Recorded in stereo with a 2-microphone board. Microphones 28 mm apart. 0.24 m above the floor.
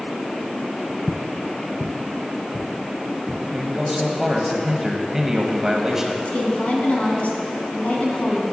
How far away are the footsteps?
About 0.8 m.